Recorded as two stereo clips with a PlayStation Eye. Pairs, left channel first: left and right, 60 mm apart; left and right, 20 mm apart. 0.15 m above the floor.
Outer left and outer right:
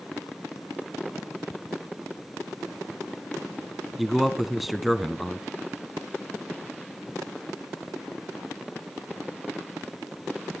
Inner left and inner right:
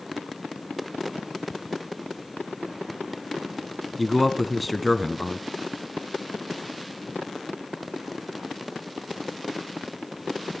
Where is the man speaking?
Centre (ahead or behind), 1.1 m.